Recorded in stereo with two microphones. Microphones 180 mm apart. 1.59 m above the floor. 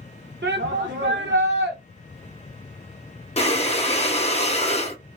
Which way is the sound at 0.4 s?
85° right.